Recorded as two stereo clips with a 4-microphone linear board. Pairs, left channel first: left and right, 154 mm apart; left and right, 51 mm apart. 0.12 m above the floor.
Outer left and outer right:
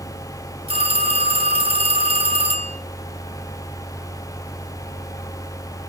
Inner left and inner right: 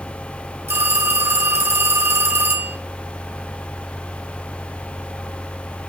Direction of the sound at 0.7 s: 40° right (ahead or behind).